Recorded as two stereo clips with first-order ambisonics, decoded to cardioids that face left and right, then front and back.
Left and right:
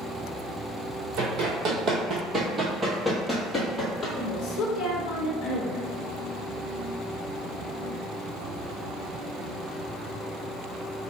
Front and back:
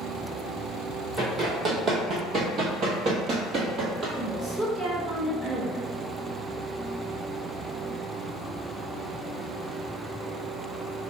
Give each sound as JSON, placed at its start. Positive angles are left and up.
{"t": 1.2, "sound": "running footsteps", "azimuth_deg": -115, "distance_m": 1.4}
{"t": 4.2, "sound": "a woman speaking", "azimuth_deg": 110, "distance_m": 0.8}